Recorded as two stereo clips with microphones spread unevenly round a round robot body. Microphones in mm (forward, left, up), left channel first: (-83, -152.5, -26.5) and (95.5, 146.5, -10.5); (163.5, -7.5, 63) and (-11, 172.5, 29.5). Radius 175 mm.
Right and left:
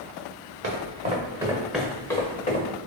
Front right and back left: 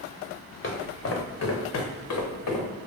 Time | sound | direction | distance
0.6 | footsteps | straight ahead | 2.0 m